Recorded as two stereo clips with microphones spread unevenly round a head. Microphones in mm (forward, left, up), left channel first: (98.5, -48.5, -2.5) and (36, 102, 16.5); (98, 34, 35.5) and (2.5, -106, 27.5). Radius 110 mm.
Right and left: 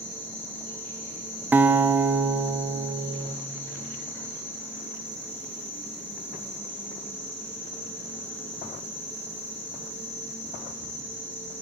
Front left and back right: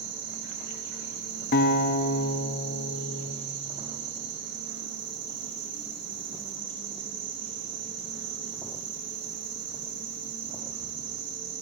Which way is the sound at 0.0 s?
150° right.